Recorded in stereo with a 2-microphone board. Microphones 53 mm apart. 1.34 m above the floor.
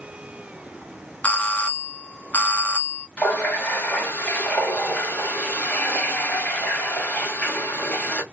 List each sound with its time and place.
1.2 s a doorbell: 35° left (ahead or behind), 0.6 m
3.2 s a running tap: 30° left (ahead or behind), 1.7 m